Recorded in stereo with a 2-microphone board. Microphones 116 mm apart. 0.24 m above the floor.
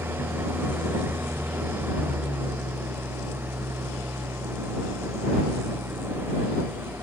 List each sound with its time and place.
0.0 s an engine running: 20° right (ahead or behind)